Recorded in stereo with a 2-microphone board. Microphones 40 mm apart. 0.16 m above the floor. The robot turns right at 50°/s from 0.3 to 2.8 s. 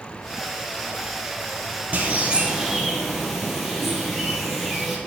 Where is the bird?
45° right, 1.9 m; by 5.0 s 5° right, 1.9 m.